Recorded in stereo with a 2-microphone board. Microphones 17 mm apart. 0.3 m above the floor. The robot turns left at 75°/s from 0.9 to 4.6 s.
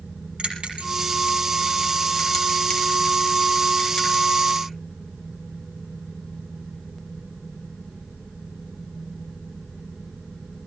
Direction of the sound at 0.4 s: 75° right (ahead or behind).